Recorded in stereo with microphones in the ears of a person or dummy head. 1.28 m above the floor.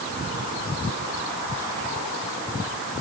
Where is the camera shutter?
No camera shutter in this recording.